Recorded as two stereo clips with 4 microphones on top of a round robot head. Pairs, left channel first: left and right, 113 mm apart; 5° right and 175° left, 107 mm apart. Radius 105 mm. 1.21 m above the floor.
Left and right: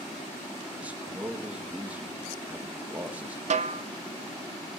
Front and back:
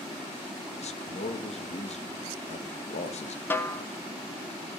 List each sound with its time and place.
0.8 s a man speaking: 10° right, 2 m
3.5 s a snare drum: 80° right, 1.0 m